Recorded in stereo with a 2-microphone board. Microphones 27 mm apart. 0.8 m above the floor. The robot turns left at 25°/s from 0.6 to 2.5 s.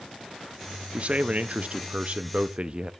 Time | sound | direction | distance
0.9 | a man speaking | 85° right | 0.6 m